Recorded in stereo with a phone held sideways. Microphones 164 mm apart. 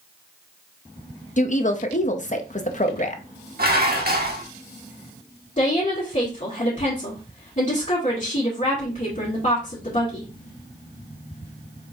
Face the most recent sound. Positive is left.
turn(degrees=45)  # may be behind; listen again after turning